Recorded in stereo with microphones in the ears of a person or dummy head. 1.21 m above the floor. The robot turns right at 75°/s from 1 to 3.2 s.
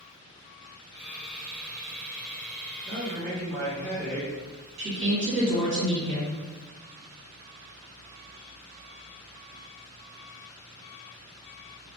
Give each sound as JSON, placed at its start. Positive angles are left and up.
{"t": 2.9, "sound": "a man speaking", "side_deg": -30, "distance_m": 0.8}
{"t": 4.8, "sound": "a woman speaking", "side_deg": -75, "distance_m": 1.3}